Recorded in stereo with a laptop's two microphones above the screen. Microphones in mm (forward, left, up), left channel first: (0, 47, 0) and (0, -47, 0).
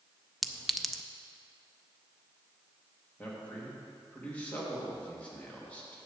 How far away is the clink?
About 0.5 m.